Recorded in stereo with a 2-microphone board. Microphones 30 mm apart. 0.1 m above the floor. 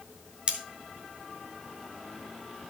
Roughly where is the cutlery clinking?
Right.